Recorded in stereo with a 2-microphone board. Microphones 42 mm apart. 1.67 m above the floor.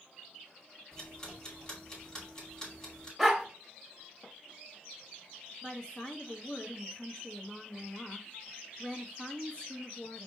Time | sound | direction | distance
0.9 | ticking | 15° left (ahead or behind) | 2 m
3.2 | a dog barking | 5° right (ahead or behind) | 1.1 m
5.6 | a woman speaking | 25° left (ahead or behind) | 1.1 m